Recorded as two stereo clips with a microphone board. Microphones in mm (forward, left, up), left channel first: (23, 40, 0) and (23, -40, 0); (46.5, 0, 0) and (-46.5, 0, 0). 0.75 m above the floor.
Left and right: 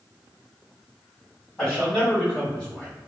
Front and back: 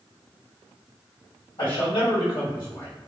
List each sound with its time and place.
1.6 s a man speaking: 15° left, 1.6 m; by 2.9 s 30° left, 0.9 m